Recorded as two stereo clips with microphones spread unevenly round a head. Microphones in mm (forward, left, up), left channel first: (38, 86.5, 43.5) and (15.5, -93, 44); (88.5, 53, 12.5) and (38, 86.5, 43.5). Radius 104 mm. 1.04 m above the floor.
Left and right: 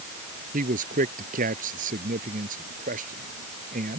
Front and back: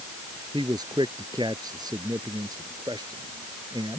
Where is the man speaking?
150° right.